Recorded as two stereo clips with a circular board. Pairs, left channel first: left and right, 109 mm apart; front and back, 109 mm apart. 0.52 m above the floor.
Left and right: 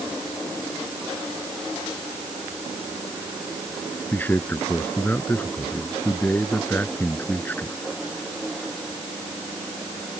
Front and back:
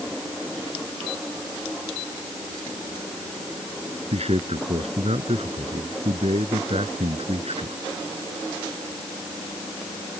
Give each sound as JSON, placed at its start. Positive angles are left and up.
{"t": 4.1, "sound": "a man speaking", "azimuth_deg": 165}